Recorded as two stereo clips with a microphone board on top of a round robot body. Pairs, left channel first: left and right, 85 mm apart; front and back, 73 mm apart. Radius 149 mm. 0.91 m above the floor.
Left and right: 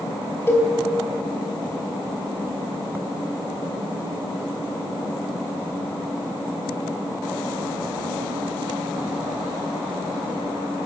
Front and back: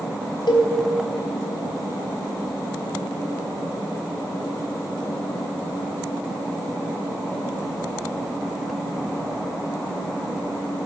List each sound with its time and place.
0.5 s a cowbell: 25° left, 4 m